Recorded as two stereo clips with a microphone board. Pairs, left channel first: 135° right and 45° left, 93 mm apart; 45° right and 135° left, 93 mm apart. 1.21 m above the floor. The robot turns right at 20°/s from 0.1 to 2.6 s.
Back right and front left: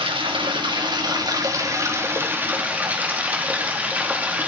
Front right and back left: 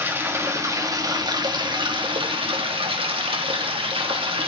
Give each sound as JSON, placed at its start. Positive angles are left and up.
{"t": 0.0, "sound": "running water", "azimuth_deg": 70, "distance_m": 2.0}